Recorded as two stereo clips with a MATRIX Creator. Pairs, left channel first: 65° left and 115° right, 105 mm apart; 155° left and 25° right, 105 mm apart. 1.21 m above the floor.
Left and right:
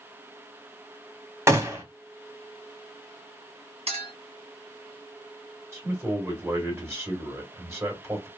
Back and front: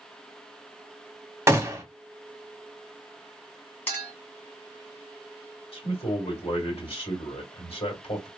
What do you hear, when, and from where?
1.5 s a gunshot: 65° right, 0.9 m
3.9 s a clink: 130° right, 1.4 m
5.7 s a man speaking: straight behind, 1.9 m